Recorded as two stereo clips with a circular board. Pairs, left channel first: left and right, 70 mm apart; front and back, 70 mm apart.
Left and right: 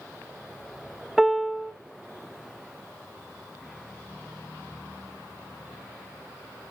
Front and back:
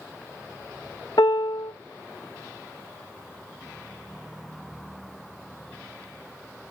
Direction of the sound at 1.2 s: Straight ahead.